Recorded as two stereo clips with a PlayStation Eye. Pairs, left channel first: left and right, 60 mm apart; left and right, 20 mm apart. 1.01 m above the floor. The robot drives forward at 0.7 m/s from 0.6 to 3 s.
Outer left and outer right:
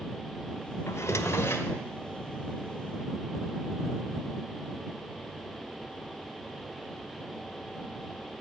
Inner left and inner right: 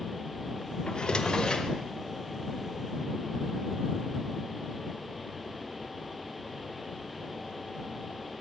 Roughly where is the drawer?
Left.